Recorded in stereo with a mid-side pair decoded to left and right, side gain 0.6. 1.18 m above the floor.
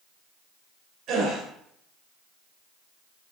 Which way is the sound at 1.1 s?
60° right.